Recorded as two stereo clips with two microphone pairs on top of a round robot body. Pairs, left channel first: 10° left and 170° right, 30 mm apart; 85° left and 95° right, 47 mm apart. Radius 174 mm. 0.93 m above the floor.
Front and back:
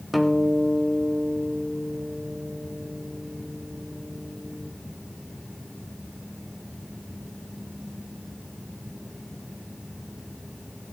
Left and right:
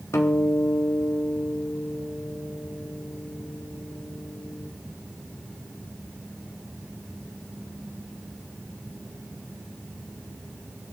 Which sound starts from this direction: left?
A guitar, at 0.1 s.